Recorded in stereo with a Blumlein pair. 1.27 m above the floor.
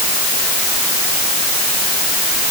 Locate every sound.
Only background noise.